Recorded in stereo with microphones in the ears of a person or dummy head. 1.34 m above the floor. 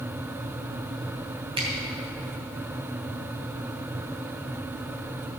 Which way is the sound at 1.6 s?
30° right (ahead or behind).